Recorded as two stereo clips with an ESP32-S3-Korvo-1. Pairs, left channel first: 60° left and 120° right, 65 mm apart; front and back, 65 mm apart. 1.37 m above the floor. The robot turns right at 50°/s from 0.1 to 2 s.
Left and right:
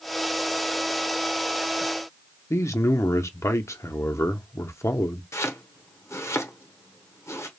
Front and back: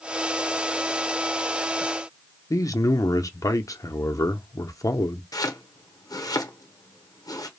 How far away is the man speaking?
About 0.6 m.